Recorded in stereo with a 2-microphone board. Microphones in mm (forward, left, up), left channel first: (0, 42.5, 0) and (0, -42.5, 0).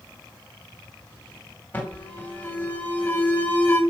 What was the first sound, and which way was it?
An alarm, 20° left (ahead or behind).